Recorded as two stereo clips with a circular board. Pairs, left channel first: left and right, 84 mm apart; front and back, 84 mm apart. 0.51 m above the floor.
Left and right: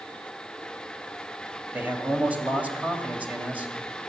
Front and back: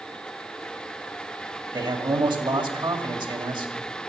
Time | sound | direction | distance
1.7 | a man speaking | 160° right | 2 m